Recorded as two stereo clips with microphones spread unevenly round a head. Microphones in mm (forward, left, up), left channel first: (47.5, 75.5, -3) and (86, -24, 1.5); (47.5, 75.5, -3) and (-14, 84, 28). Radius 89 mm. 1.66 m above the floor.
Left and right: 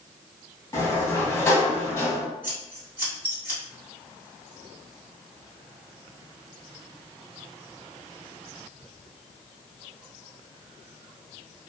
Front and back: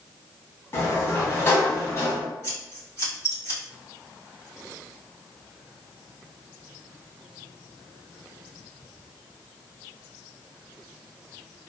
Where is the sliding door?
50° left, 1.1 m.